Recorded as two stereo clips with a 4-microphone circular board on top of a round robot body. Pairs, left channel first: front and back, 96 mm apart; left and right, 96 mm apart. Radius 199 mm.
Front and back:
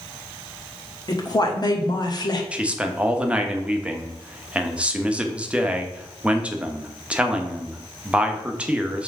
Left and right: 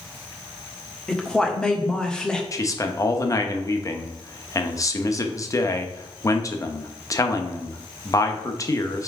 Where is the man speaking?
110° left, 1.1 m.